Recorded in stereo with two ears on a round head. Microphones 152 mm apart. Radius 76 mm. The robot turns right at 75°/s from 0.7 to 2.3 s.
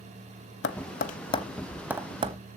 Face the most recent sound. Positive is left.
turn(degrees=-40)  # may be behind; listen again after turning